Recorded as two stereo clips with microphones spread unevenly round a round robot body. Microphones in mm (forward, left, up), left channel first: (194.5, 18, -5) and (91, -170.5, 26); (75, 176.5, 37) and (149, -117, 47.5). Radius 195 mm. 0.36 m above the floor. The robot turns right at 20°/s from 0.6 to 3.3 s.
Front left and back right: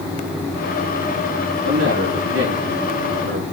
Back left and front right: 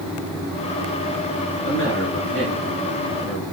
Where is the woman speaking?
Straight behind, 5.5 m; by 3.4 s 150° right, 5.5 m.